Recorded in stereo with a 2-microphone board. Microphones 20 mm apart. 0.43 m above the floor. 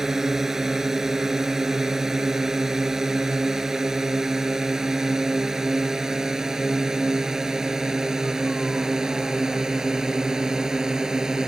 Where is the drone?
20° right (ahead or behind); by 11.5 s 25° right (ahead or behind).